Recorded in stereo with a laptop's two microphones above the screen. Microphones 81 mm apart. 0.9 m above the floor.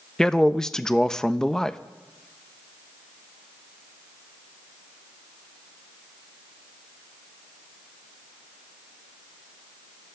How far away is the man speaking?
About 0.5 m.